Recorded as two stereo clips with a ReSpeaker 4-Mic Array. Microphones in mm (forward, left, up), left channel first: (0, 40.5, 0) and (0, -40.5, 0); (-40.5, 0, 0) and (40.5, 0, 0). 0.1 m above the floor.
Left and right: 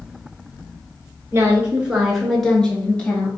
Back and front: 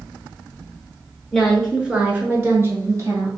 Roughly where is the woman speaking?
Right.